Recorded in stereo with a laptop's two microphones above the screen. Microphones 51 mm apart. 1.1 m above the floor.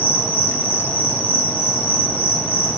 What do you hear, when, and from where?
0.0 s an insect: 45° left (ahead or behind), 1.1 m